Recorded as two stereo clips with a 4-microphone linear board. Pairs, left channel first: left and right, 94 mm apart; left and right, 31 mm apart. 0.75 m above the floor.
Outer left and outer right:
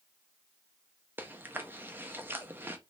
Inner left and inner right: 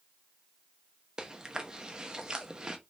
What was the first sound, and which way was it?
Chewing, 25° right (ahead or behind).